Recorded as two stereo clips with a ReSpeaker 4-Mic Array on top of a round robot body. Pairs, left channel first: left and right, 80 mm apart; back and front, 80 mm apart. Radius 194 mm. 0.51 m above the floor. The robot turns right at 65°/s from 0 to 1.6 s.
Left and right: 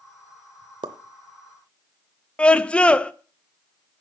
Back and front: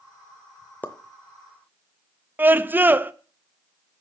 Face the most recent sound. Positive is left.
turn(degrees=30)